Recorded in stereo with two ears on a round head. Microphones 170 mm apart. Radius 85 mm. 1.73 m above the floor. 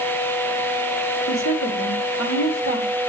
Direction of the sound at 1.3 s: 80° left.